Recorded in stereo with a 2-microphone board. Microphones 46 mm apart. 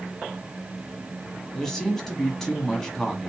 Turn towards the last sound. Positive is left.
turn(degrees=10)  # may be behind; listen again after turning